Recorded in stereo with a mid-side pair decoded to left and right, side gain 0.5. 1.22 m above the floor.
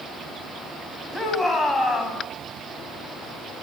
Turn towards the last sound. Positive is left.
turn(degrees=10)